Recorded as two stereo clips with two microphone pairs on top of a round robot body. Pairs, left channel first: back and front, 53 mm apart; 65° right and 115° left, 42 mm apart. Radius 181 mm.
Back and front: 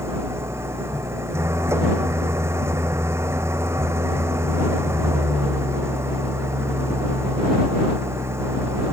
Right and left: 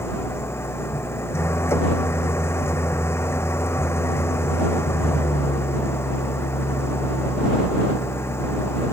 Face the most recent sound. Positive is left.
turn(degrees=-40)